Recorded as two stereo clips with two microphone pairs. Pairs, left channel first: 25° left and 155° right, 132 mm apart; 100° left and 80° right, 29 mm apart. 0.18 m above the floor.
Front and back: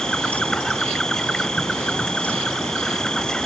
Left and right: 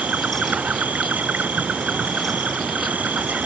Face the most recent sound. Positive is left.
turn(degrees=-60)